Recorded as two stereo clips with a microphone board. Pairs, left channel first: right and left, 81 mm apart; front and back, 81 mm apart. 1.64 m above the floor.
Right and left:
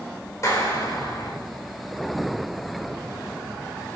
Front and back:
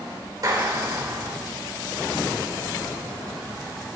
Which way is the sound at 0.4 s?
140° right.